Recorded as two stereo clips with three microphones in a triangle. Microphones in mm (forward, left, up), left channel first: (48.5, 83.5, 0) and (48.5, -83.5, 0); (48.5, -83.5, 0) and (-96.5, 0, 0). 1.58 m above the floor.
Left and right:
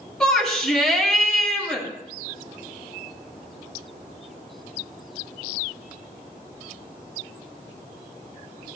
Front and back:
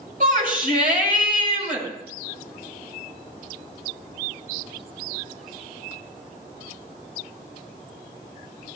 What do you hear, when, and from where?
0.2 s a shout: 175° left, 6.5 m